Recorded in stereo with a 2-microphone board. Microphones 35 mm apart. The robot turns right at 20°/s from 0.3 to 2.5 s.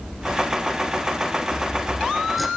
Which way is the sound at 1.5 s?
15° right (ahead or behind).